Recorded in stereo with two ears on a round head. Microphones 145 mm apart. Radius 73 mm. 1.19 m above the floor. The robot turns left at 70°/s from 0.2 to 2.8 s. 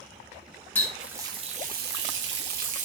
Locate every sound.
0.8 s a running tap: 15° left, 0.8 m; by 2.9 s 130° right, 0.8 m